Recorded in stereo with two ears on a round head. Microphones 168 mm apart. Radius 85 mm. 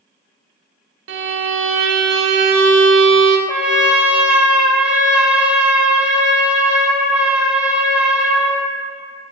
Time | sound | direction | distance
1.1 | a violin | 75° right (ahead or behind) | 0.6 m
3.5 | a trumpet | 5° right (ahead or behind) | 0.7 m